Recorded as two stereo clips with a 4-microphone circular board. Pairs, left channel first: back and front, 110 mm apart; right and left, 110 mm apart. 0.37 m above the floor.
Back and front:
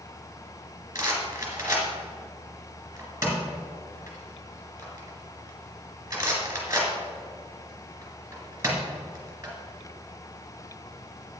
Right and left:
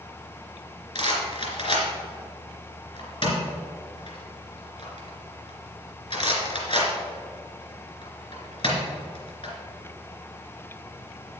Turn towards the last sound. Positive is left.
turn(degrees=-65)